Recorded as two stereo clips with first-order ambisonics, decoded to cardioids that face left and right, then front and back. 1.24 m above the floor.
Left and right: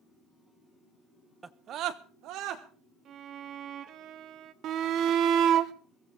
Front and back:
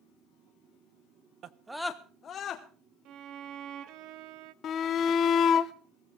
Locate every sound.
1.4 s a scream: 160° right, 0.6 m; by 2.6 s 55° right, 1.5 m
3.0 s a violin: 145° right, 0.9 m
4.6 s a shout: 50° right, 1.0 m